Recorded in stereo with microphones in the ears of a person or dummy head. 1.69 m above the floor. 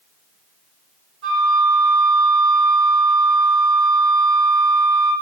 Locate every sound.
1.2 s a flute: 55° right (ahead or behind), 1.5 m